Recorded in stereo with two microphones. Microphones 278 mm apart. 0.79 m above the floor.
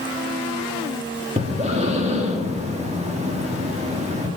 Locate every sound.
1.4 s breathing: 25° right (ahead or behind), 1.6 m